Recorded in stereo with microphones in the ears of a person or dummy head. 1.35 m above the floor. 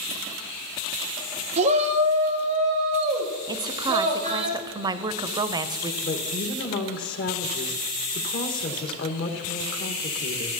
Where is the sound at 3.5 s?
20° right (ahead or behind), 0.5 m.